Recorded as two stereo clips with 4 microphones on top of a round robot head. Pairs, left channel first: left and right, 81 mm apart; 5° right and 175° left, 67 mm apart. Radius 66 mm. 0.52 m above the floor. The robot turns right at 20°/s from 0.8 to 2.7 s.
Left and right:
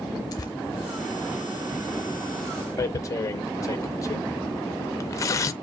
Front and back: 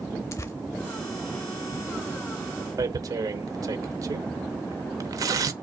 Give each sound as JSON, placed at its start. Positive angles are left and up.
{"t": 0.3, "sound": "tearing paper", "azimuth_deg": 40, "distance_m": 0.8}
{"t": 2.8, "sound": "tearing paper", "azimuth_deg": 140, "distance_m": 0.7}